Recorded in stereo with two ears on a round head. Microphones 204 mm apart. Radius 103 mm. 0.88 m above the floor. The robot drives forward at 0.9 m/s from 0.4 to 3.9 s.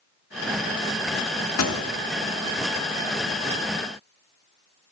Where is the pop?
75° left (ahead or behind), 1.2 m; by 1.8 s 70° left (ahead or behind), 1.2 m.